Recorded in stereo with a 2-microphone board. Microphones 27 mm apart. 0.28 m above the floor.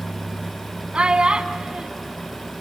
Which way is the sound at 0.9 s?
40° right (ahead or behind).